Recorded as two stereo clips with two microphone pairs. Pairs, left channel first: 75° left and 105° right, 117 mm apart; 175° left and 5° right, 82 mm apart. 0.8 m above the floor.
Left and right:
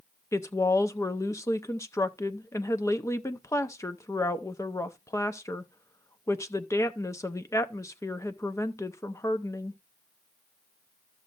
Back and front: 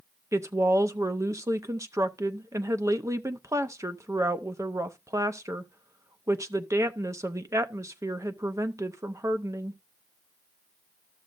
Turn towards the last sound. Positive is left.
turn(degrees=20)